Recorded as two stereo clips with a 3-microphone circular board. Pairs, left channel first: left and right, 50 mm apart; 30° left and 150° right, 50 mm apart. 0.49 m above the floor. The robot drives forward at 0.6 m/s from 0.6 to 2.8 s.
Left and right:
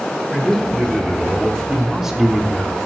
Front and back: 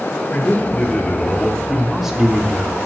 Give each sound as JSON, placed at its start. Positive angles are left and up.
{"t": 0.3, "sound": "a man speaking", "azimuth_deg": -10, "distance_m": 1.3}